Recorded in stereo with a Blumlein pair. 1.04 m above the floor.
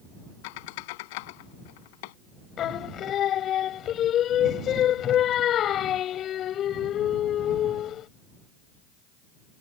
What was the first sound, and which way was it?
A squeak, 50° left.